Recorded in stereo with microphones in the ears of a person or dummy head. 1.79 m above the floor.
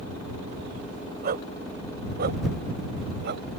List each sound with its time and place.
1.2 s a dog barking: 45° right (ahead or behind); by 3.4 s 55° right (ahead or behind)